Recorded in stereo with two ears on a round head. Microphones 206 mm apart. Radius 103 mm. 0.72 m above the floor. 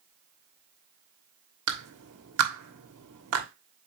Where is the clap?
70° right (ahead or behind), 1.4 m.